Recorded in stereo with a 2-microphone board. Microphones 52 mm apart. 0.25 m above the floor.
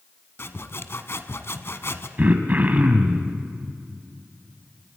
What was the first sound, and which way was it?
Sawing, 55° left (ahead or behind).